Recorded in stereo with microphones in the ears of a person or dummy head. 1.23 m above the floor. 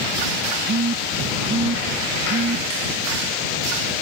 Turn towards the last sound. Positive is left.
turn(degrees=-55)  # may be behind; listen again after turning